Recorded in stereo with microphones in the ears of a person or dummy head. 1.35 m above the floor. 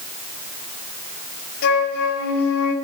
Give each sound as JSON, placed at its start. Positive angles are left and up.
{"t": 1.6, "sound": "a flute", "side_deg": 55, "distance_m": 1.8}